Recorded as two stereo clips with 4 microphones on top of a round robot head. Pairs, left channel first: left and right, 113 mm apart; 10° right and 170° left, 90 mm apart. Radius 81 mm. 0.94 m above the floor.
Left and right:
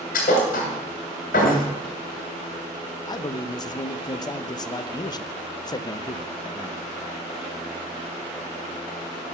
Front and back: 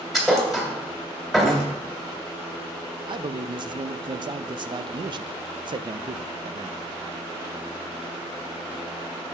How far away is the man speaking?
About 0.6 m.